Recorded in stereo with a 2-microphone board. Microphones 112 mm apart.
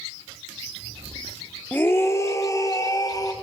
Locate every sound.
1.7 s a scream: 15° left (ahead or behind), 1.0 m; by 3.3 s 35° left (ahead or behind), 2.5 m